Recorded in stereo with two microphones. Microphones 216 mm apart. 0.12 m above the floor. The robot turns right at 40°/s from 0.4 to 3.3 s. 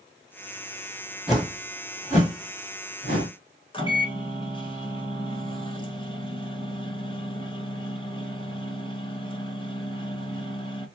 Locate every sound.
1.3 s a whoosh: 5° right (ahead or behind), 2 m; by 3.3 s 75° left (ahead or behind), 2 m
3.7 s a microwave: 25° left (ahead or behind), 0.9 m